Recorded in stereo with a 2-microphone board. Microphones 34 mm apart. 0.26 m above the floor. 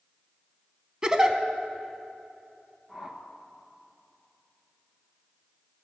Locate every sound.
1.0 s a giggle: 25° right (ahead or behind), 0.7 m
2.9 s a whoosh: 20° right (ahead or behind), 1.0 m